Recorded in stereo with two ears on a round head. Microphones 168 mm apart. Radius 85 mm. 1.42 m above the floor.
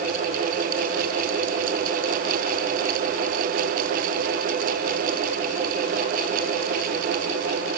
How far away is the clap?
I don't hear a clap.